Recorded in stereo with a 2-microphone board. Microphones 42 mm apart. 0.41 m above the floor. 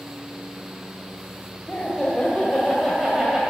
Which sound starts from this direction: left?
Laughter, at 1.7 s.